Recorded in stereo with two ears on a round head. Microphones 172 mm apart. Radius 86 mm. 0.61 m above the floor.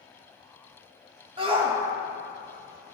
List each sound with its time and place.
1.4 s a shout: 25° right (ahead or behind), 1.2 m